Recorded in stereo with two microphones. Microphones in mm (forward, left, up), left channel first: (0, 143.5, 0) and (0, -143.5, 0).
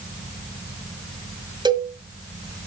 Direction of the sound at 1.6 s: 15° right (ahead or behind).